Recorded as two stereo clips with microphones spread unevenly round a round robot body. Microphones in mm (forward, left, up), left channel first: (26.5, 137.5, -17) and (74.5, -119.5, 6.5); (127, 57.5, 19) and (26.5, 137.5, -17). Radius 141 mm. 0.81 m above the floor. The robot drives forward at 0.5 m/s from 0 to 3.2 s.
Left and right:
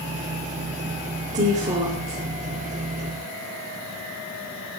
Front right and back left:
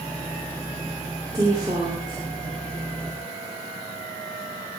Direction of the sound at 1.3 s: 145° right.